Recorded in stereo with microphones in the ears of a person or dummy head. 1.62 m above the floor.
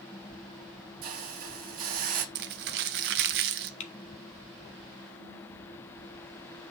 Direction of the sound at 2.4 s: 60° right (ahead or behind).